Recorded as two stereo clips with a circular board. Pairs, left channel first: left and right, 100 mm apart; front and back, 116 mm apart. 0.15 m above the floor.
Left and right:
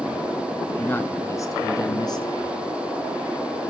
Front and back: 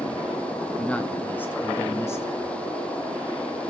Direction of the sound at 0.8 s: 65° left.